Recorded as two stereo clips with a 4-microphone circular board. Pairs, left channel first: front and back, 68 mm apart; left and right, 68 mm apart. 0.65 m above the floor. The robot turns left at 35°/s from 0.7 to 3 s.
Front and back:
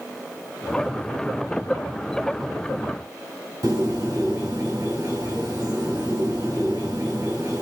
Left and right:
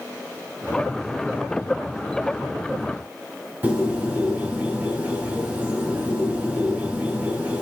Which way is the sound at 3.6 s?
155° right.